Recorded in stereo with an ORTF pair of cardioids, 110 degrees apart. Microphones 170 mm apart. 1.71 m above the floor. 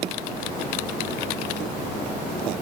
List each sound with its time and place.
Only background noise.